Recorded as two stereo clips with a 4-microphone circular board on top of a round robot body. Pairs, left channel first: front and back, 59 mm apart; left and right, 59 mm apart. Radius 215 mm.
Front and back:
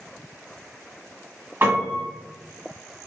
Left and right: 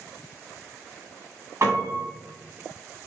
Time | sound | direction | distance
1.6 | a piano | 130° right | 1.5 m